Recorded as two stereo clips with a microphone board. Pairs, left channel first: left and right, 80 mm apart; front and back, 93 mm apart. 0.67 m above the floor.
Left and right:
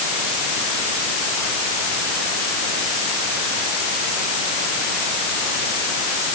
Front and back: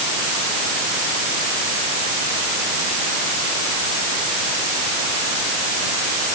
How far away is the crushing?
I don't hear crushing.